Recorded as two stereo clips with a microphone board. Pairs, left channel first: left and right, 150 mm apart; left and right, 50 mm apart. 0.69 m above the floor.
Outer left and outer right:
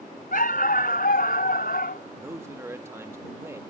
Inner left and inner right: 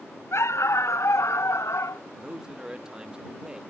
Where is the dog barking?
70° left (ahead or behind); by 2.0 s 80° left.